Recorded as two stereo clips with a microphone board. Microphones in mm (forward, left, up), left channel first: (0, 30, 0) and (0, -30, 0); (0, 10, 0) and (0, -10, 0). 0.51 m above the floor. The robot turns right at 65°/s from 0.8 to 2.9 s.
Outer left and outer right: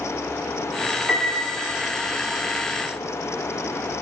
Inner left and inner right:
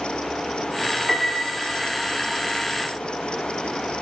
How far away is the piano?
About 0.6 m.